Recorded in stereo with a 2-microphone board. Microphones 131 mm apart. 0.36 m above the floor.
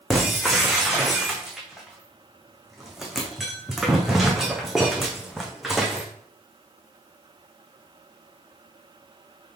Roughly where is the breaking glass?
Centre.